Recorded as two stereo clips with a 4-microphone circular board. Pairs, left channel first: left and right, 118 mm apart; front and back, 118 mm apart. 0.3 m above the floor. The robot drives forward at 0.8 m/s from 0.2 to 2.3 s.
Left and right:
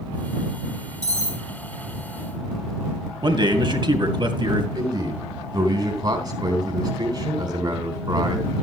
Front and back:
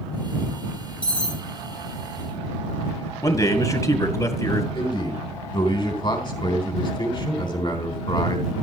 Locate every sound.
1.0 s cutlery clinking: 80° left, 5.5 m; by 1.4 s 85° left, 5.5 m
3.2 s a man speaking: 55° right, 2 m
4.8 s a man speaking: 40° right, 3 m